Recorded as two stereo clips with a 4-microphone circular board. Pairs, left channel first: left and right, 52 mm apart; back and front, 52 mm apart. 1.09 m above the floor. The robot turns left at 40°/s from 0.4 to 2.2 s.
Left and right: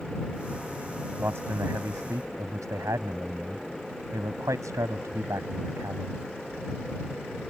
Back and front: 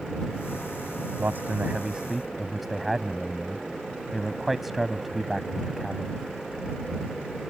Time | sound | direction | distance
1.2 | a man speaking | 45° right | ?